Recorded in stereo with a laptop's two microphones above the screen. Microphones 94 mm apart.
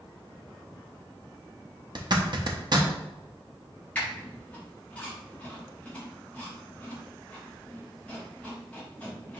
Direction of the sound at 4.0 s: 15° left (ahead or behind).